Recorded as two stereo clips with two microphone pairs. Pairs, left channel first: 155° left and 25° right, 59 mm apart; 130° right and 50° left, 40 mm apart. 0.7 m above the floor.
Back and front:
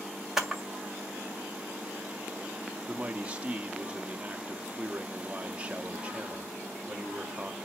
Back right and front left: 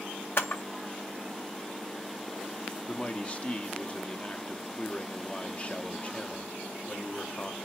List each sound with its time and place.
0.4 s a camera shutter: 110° right, 1.7 m
2.9 s a man speaking: 85° right, 0.9 m